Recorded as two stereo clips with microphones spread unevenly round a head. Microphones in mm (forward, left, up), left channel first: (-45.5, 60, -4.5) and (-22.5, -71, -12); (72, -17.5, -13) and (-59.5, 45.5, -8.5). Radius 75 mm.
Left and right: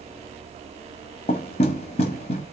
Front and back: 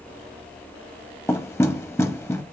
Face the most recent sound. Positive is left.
turn(degrees=50)